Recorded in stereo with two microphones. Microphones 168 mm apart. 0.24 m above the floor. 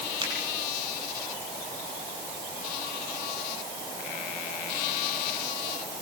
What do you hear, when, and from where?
0.2 s a finger snap: 25° right (ahead or behind), 7 m